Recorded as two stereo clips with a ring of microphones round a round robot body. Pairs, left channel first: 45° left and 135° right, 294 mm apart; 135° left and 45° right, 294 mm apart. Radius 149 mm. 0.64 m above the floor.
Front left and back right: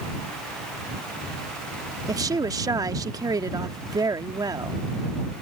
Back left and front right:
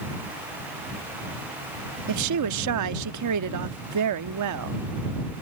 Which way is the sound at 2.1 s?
60° right.